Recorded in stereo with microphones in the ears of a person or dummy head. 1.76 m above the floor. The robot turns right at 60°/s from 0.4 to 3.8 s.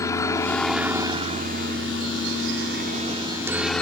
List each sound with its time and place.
0.0 s a helicopter: 20° left (ahead or behind); by 3.8 s 5° left (ahead or behind)